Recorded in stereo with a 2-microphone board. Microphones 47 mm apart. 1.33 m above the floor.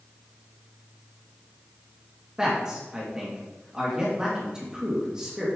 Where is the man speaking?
15° right (ahead or behind), 2 m.